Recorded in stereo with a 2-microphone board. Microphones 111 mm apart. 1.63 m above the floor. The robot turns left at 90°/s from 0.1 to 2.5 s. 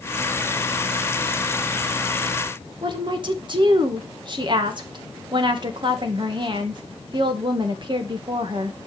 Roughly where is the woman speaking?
Right.